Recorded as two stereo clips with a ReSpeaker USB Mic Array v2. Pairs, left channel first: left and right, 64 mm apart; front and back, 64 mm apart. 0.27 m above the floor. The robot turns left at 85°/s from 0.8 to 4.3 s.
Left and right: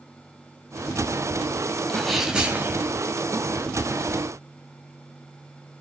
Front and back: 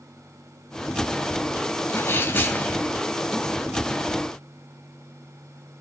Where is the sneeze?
20° left, 1.7 m; by 2.9 s 70° right, 1.7 m.